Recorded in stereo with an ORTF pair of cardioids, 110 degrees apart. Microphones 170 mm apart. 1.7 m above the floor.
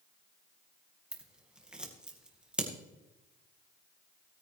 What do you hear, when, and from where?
1.1 s scissors: 5° right, 2 m